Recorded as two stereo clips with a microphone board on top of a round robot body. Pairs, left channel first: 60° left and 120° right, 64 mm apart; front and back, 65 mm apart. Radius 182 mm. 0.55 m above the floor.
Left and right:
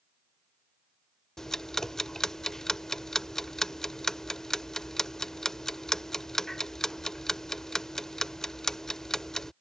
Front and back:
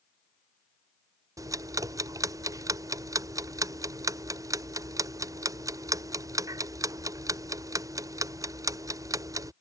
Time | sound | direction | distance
1.4 | ticking | 145° left | ?